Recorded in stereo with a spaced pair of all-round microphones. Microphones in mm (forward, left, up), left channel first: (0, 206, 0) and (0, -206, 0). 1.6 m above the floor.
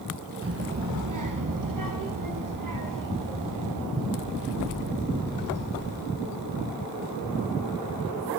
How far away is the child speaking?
About 0.8 m.